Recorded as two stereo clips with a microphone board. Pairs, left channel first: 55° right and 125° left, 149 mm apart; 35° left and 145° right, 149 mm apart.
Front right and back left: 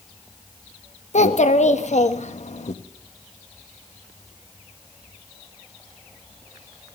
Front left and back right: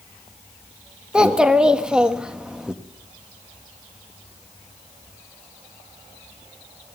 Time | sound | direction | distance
1.1 | a child speaking | 65° right | 1.3 m